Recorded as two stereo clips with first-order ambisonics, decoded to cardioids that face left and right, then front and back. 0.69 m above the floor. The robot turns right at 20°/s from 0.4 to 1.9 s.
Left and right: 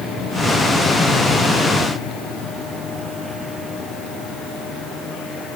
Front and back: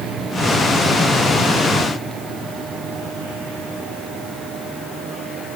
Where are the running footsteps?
I don't hear running footsteps.